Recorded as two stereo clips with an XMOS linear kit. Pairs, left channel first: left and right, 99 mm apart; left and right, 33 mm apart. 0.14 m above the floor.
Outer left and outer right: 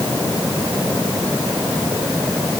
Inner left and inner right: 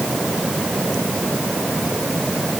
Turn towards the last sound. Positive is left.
No sound to turn to.